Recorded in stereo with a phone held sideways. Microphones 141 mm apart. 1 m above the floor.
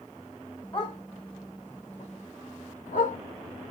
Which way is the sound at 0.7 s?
35° left (ahead or behind).